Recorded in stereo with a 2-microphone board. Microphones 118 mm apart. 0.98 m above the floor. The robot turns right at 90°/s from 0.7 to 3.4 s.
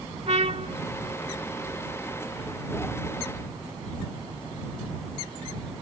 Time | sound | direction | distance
0.3 | a trumpet | 60° right (ahead or behind) | ?